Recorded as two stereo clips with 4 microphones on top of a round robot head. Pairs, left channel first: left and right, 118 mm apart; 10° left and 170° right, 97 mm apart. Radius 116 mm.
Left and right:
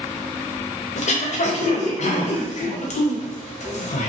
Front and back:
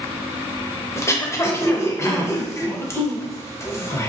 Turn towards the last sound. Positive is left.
turn(degrees=70)